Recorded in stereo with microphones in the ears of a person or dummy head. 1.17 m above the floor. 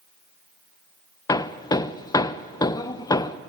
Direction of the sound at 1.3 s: 15° left (ahead or behind).